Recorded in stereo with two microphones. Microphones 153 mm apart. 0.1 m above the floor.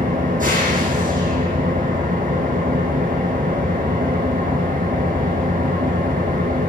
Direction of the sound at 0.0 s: 55° right (ahead or behind).